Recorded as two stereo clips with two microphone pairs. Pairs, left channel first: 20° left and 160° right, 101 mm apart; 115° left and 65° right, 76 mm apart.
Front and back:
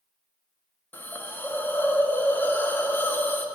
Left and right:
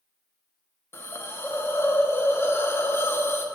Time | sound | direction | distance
0.9 | a hiss | 75° left | 0.5 m